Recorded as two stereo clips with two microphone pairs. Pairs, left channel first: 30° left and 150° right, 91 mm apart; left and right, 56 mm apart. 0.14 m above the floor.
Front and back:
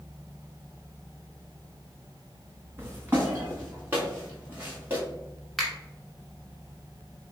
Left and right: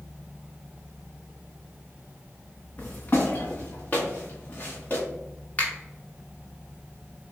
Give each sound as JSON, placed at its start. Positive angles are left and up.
{"t": 2.8, "sound": "footsteps", "azimuth_deg": 150, "distance_m": 1.0}
{"t": 5.6, "sound": "a finger snap", "azimuth_deg": 115, "distance_m": 1.2}